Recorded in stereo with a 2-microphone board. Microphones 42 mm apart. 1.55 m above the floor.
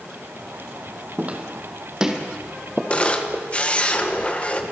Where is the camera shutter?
30° left (ahead or behind), 1.6 m.